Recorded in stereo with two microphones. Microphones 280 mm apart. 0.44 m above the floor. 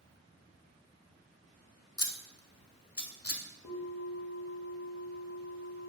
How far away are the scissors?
About 0.5 m.